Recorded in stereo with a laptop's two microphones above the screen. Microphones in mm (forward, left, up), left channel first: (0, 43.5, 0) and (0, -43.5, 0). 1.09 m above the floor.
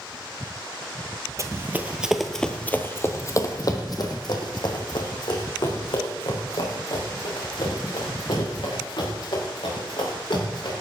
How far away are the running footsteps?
About 1.2 m.